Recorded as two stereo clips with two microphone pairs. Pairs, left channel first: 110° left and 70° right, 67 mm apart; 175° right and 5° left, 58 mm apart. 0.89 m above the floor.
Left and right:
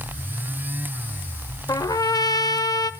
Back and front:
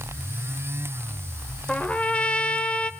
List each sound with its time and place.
1.7 s a trumpet: 120° left, 1.3 m